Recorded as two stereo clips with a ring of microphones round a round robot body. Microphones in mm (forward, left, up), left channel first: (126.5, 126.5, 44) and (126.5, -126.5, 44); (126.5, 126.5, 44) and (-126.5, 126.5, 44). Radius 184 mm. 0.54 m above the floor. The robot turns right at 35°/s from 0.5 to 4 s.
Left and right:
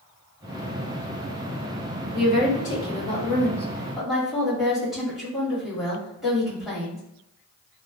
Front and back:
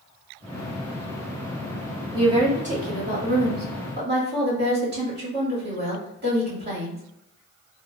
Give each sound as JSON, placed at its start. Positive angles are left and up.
{"t": 2.1, "sound": "a woman speaking", "azimuth_deg": 115, "distance_m": 1.5}